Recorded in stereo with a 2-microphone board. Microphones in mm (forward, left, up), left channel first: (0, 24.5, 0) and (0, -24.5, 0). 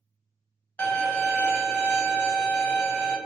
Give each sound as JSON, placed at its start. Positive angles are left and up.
{"t": 0.8, "sound": "a violin", "side_deg": 25, "distance_m": 0.8}